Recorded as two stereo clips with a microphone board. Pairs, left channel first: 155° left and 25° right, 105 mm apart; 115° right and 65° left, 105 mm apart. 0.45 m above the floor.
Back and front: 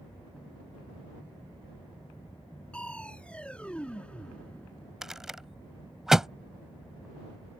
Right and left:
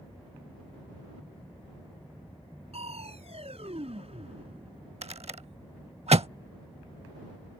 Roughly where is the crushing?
Left.